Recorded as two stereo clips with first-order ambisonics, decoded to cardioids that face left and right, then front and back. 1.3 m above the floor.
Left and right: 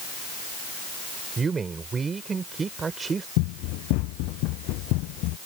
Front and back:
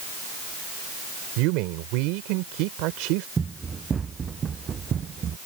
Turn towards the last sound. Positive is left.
turn(degrees=120)